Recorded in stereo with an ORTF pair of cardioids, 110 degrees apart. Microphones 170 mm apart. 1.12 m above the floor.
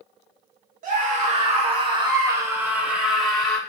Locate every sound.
0.8 s a scream: 55° right, 1.9 m; by 3.6 s 5° left, 2 m